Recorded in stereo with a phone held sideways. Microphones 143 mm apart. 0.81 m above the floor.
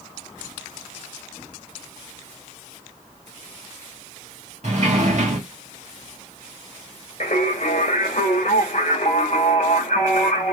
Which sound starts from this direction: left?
Singing, at 7.2 s.